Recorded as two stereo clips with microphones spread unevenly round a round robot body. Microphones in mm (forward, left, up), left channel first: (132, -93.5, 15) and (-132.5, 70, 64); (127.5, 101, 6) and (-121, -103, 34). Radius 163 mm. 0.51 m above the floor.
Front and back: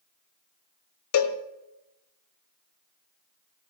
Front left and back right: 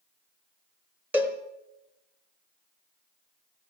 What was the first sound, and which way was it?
A cowbell, 55° right.